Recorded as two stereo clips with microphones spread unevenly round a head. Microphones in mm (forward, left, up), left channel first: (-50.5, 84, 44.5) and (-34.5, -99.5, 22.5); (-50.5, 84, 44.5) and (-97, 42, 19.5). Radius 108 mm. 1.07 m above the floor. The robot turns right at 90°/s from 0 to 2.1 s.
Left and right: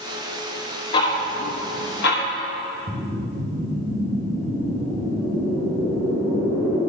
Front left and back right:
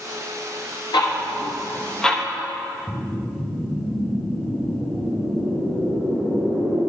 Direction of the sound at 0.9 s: 25° left.